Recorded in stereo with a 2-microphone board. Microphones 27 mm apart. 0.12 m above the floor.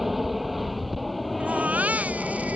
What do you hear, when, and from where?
0.0 s an aircraft: 5° right (ahead or behind); by 2.6 s 5° left (ahead or behind)
1.4 s a baby crying: 65° right (ahead or behind)